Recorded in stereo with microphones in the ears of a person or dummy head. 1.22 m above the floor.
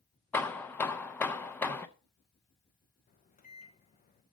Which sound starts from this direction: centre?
Hammering, at 0.3 s.